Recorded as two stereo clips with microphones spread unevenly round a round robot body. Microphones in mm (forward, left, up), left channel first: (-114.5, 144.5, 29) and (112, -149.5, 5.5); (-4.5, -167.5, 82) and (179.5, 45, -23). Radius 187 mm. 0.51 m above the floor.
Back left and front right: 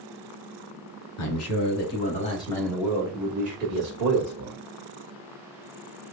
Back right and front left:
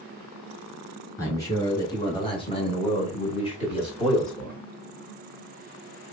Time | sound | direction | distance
1.2 | a man speaking | 125° left | 1.5 m